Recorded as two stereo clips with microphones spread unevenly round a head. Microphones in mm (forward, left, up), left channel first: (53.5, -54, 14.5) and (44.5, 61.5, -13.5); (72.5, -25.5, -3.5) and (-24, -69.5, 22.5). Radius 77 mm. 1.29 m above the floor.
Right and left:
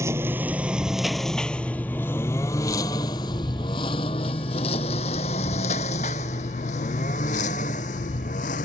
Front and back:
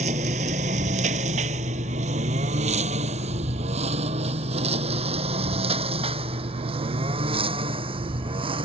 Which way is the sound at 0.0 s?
170° left.